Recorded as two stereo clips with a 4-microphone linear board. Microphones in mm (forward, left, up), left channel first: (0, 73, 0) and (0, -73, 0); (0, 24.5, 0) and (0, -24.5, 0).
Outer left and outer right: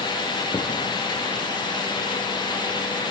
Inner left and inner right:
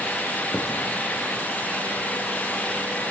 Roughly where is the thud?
Left.